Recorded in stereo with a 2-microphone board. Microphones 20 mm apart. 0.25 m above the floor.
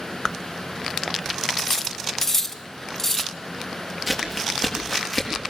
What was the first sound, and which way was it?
Cutlery clinking, 20° left (ahead or behind).